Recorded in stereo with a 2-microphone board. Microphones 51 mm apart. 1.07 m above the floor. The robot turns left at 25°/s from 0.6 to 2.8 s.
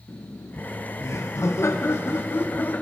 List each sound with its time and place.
0.1 s laughter: 95° left, 0.6 m; by 2.8 s 40° left, 0.6 m